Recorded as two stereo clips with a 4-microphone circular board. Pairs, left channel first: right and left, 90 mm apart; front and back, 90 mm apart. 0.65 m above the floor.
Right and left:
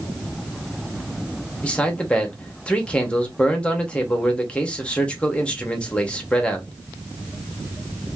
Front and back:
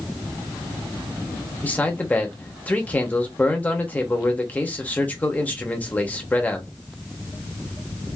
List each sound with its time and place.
1.6 s a man speaking: 35° right, 0.8 m